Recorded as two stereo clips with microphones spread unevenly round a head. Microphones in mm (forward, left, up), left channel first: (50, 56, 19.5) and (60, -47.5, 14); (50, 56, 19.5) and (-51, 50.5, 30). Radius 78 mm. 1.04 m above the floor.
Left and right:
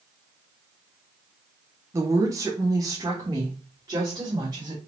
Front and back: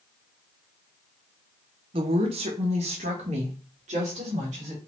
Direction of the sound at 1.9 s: 145° right.